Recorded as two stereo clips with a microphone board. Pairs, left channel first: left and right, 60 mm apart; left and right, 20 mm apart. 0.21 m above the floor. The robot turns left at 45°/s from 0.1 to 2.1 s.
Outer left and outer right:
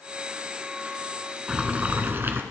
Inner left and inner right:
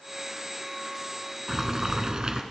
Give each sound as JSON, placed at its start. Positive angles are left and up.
{"t": 1.5, "sound": "boiling", "side_deg": -15, "distance_m": 1.2}